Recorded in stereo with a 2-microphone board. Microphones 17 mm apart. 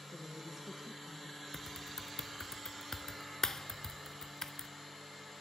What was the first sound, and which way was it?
A woman speaking, 20° right (ahead or behind).